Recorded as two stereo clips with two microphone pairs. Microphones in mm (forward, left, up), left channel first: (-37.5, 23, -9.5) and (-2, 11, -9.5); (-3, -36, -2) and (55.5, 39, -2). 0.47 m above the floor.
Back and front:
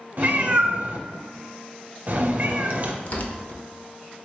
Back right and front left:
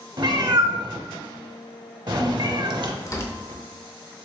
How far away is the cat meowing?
About 0.6 m.